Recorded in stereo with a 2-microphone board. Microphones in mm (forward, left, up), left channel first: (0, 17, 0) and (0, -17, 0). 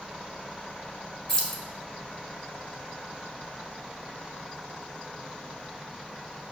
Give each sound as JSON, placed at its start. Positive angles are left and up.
{"t": 1.3, "sound": "keys jangling", "side_deg": 15, "distance_m": 0.8}